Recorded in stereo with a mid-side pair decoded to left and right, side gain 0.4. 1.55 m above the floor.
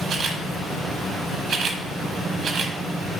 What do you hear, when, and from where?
0.1 s a camera shutter: 70° right, 1.0 m